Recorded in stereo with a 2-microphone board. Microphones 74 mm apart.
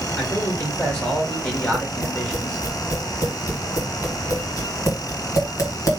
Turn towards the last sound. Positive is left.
turn(degrees=50)  # may be behind; listen again after turning